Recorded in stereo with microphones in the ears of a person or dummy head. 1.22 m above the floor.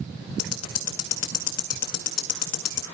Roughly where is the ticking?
Left.